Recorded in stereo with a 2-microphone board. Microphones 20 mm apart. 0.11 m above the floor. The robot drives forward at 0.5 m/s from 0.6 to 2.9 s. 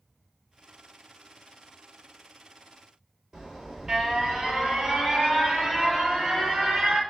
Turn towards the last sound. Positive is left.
turn(degrees=-35)  # may be behind; listen again after turning